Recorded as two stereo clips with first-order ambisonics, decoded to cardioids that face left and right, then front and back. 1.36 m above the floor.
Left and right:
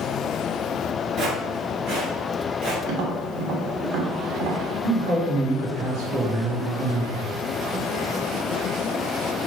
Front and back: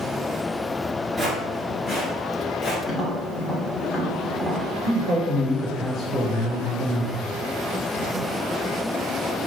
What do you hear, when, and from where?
1.2 s footsteps: 100° right, 1.4 m; by 2.8 s 65° right, 2 m
2.9 s tapping: 75° right, 1.2 m
4.8 s a man speaking: 70° right, 1.9 m